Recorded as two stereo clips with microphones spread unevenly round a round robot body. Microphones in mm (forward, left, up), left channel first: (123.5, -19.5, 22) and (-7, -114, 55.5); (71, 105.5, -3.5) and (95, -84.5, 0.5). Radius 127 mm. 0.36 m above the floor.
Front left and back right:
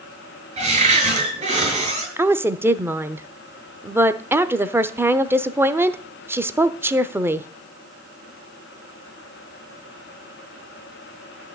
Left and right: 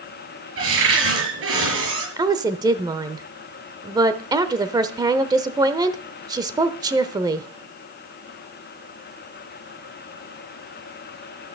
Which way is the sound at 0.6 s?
95° right.